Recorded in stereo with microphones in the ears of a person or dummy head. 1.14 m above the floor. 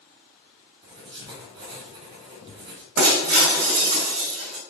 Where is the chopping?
I don't hear chopping.